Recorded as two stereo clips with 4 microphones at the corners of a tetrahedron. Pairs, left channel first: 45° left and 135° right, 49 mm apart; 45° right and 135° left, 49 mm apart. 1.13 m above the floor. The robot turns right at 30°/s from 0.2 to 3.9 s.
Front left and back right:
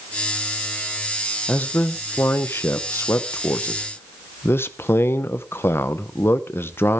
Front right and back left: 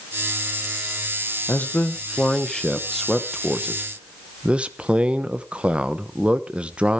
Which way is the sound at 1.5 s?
Straight ahead.